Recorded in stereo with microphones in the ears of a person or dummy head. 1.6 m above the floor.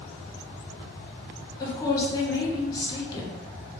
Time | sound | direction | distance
1.6 | a woman speaking | 20° left (ahead or behind) | 0.7 m